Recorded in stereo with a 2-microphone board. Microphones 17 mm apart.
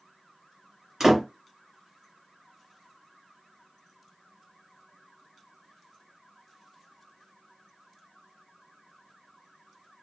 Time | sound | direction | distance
1.0 | a door slam | 25° right (ahead or behind) | 1.3 m